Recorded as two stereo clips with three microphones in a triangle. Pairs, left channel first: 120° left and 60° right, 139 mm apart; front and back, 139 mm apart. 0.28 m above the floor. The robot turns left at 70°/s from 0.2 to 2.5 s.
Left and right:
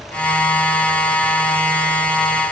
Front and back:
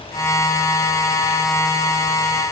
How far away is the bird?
I don't hear a bird.